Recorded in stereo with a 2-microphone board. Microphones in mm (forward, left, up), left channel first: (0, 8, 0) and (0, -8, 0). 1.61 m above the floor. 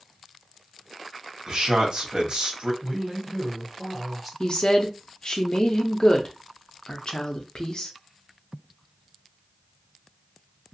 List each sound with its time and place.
1.5 s a man speaking: 60° right (ahead or behind), 1.1 m
2.8 s a woman speaking: 5° left (ahead or behind), 1.0 m
4.4 s a woman speaking: 50° left (ahead or behind), 0.7 m